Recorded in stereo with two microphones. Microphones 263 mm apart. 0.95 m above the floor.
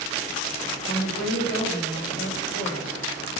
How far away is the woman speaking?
About 3 m.